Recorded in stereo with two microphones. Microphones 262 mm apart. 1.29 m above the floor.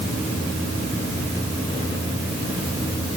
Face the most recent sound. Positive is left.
No sound to turn to.